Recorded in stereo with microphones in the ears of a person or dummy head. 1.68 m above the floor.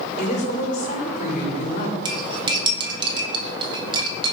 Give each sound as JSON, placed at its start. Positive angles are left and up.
{"t": 0.2, "sound": "a woman speaking", "side_deg": 45, "distance_m": 4.0}
{"t": 2.0, "sound": "cutlery clinking", "side_deg": -30, "distance_m": 1.8}